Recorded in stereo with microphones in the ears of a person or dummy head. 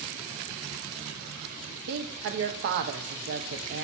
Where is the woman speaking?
60° right (ahead or behind), 0.6 m.